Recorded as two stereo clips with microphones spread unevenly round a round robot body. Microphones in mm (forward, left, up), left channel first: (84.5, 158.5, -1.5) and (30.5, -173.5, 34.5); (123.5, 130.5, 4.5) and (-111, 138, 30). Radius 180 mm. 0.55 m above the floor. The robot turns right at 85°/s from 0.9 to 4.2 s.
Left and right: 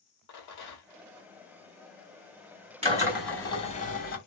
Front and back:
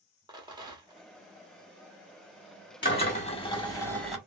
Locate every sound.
0.3 s a rattle: 105° left, 1.4 m; by 1.1 s 115° left, 1.4 m
2.8 s a drill: 35° right, 1.3 m; by 4.2 s 80° left, 1.3 m